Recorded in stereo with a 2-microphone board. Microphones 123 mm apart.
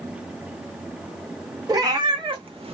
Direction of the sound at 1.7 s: 30° right (ahead or behind).